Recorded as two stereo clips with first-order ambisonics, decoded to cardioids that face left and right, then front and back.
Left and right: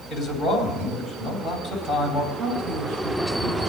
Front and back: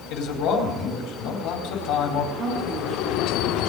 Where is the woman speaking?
115° right, 4.5 m.